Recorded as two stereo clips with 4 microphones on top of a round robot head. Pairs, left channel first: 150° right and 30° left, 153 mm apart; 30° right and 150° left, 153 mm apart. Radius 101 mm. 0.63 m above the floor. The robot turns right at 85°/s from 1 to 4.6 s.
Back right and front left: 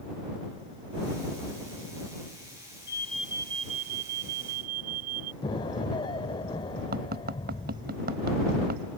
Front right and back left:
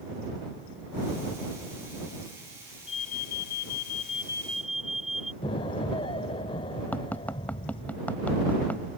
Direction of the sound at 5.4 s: 90° right.